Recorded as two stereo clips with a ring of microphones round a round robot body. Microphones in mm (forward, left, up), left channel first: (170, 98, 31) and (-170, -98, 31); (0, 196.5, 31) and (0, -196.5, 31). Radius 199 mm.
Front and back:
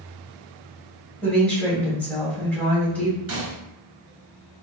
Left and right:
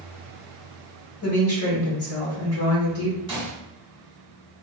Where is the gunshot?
160° right, 1.2 m.